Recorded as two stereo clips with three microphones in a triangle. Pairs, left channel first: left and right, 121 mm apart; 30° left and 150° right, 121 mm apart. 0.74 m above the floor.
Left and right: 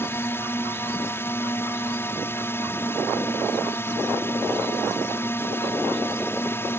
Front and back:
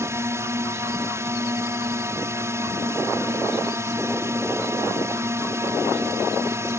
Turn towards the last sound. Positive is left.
turn(degrees=155)